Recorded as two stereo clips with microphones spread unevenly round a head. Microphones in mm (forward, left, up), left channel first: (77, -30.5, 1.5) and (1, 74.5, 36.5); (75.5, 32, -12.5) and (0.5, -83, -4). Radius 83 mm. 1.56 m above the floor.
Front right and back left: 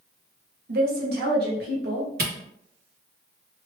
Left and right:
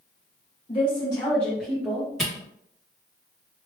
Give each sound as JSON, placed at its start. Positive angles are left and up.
{"t": 0.7, "sound": "a woman speaking", "azimuth_deg": 115, "distance_m": 1.0}
{"t": 2.2, "sound": "a camera shutter", "azimuth_deg": 145, "distance_m": 1.1}